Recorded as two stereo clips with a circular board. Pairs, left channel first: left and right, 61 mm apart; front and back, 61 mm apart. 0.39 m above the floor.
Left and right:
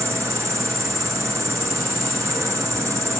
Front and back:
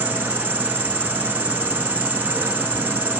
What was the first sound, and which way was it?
An insect, 120° right.